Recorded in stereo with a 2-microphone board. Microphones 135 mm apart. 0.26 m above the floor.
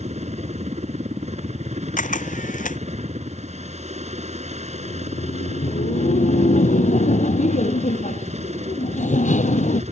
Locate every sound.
0.0 s a helicopter: 55° right (ahead or behind)
2.0 s a camera shutter: 75° left (ahead or behind)
4.7 s laughter: 65° left (ahead or behind)